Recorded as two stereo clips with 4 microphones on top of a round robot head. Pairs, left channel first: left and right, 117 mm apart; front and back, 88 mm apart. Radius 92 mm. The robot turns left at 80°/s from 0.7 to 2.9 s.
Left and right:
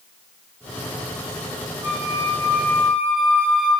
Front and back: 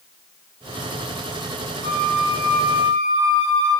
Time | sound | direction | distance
1.8 | a flute | 15° right | 6.5 m